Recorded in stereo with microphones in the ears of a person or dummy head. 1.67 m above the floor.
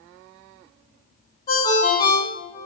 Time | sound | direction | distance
1.5 | a ringtone | 35° left (ahead or behind) | 1.0 m